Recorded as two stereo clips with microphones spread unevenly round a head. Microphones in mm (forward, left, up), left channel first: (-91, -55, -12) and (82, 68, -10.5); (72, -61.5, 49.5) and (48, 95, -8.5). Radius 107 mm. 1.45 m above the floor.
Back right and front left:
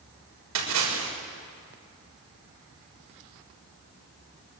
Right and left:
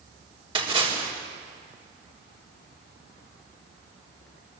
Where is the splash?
40° left, 6.5 m.